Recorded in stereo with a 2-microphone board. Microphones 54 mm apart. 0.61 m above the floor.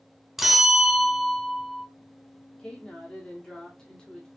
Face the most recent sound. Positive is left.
turn(degrees=15)  # may be behind; listen again after turning